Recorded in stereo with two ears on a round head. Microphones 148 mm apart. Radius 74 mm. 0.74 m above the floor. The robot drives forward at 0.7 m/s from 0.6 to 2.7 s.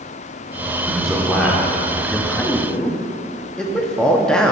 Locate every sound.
0.8 s a man speaking: centre (ahead or behind), 1.8 m
2.3 s a man speaking: 5° left (ahead or behind), 0.5 m